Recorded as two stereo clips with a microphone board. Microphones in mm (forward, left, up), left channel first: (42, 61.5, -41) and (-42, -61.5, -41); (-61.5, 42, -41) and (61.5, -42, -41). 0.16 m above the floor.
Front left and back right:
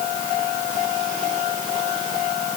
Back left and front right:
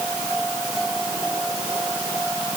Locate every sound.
Only background noise.